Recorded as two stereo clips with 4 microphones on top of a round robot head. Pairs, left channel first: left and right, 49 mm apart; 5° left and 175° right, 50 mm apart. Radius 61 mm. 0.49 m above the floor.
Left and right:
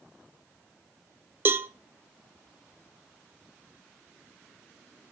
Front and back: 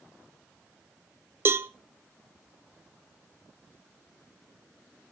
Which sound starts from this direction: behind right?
A cowbell, at 1.4 s.